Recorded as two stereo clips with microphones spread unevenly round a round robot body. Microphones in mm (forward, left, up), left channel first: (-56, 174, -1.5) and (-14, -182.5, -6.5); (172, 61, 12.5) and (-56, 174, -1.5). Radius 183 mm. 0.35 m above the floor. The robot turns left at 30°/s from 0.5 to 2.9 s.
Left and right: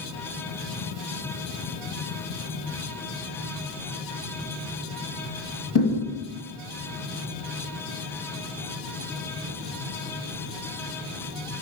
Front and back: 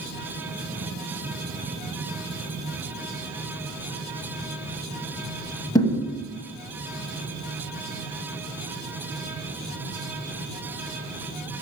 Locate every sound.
5.8 s a thud: 50° left, 1.3 m